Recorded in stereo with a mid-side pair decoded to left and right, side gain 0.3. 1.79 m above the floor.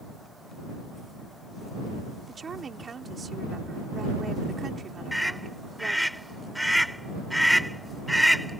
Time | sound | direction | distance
2.3 | a woman speaking | 60° right | ?
5.1 | a scream | 5° right | ?